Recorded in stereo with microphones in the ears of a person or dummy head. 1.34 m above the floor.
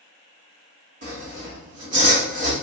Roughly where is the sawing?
Right.